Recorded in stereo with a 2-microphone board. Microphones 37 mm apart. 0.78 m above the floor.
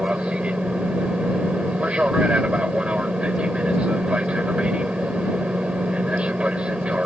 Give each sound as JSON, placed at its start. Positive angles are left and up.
{"t": 0.0, "sound": "an aircraft", "side_deg": -30}